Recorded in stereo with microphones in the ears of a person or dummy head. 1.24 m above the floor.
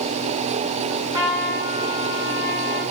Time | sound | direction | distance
0.9 | a trumpet | 20° right (ahead or behind) | 1.1 m